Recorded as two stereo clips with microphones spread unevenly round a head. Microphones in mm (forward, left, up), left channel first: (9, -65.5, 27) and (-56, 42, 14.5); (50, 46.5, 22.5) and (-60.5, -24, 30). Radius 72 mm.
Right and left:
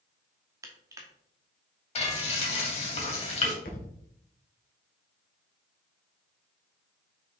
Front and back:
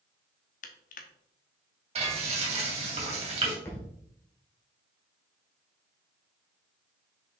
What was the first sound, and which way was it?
Crushing, 50° left.